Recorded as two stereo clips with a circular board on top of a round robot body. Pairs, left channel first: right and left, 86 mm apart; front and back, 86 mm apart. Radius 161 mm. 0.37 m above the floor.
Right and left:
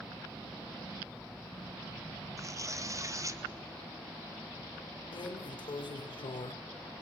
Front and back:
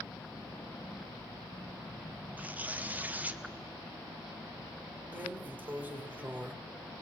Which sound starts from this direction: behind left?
Tearing paper, at 2.4 s.